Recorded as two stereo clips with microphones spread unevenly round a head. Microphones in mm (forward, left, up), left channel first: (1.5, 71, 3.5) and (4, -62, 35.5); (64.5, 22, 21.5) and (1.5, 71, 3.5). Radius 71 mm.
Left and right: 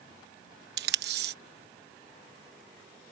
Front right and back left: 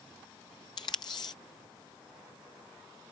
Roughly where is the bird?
No bird in this recording.